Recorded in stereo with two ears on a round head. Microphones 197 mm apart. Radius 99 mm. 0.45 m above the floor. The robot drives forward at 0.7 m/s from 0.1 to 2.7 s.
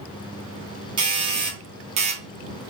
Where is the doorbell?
25° right (ahead or behind), 1.6 m; by 2.7 s 30° right (ahead or behind), 1.3 m.